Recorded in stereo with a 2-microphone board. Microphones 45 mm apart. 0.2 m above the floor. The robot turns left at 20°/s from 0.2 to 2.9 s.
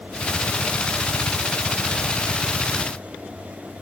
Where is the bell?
I don't hear a bell.